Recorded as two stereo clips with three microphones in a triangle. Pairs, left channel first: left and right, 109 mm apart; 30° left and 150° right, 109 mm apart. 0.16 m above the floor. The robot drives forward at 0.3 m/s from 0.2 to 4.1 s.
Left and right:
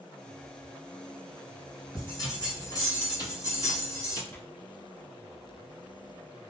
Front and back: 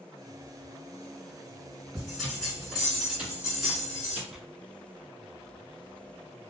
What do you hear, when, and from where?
1.9 s a bell: 110° left, 2.0 m; by 4.2 s 135° left, 2 m
4.3 s tearing paper: 130° left, 0.6 m